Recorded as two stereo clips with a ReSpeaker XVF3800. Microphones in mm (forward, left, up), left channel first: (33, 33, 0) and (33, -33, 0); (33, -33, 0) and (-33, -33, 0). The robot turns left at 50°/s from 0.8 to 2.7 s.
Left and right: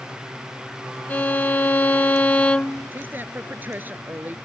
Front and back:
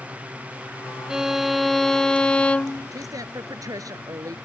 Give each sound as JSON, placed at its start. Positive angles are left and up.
{"t": 1.1, "sound": "a violin", "azimuth_deg": 115}
{"t": 2.9, "sound": "a woman speaking", "azimuth_deg": -150}